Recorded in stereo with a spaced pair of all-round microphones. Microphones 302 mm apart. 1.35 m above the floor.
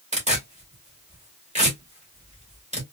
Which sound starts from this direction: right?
Tearing paper, at 0.1 s.